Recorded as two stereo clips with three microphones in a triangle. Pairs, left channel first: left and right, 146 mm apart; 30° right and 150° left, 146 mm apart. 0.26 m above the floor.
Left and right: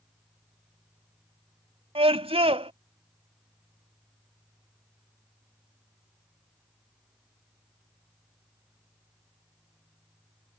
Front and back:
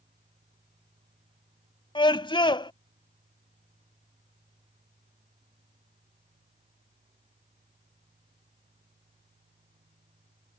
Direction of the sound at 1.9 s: 70° right.